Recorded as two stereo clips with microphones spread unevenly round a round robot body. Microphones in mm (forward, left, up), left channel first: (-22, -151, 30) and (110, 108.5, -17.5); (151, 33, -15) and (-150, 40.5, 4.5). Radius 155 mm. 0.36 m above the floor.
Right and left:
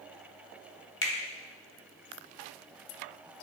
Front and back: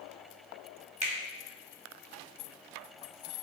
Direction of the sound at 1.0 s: 130° right.